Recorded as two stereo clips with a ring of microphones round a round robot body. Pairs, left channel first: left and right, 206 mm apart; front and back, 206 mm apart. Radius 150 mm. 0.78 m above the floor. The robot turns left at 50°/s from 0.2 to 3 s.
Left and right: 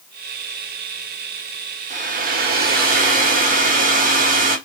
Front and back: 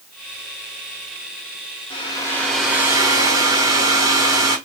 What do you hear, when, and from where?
1.9 s a hair dryer: 55° right, 1.1 m; by 4.6 s 110° right, 1.1 m